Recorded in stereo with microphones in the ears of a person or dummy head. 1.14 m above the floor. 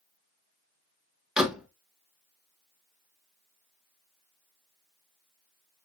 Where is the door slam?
5° left (ahead or behind), 0.8 m.